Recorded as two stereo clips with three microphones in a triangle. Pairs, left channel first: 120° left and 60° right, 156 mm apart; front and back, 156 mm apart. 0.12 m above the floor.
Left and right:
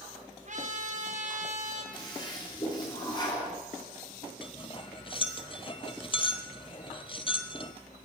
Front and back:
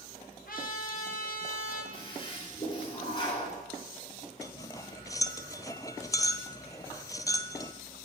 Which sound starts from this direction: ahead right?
A trumpet, at 0.5 s.